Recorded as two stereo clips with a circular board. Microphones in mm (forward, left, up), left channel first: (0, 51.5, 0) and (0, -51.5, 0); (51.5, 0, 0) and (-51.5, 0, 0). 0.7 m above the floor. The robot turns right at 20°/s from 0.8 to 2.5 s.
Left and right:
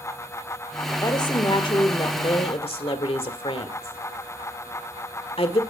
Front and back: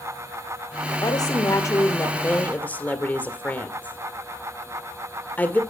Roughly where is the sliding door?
I don't hear a sliding door.